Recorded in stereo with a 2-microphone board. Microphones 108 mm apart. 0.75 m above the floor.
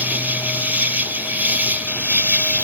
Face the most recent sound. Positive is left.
turn(degrees=-15)  # may be behind; listen again after turning